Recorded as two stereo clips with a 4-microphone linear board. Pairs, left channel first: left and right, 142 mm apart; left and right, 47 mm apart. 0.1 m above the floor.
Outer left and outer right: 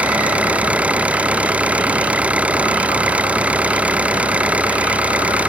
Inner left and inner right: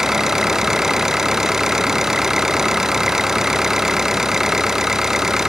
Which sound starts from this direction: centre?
An engine running, at 0.0 s.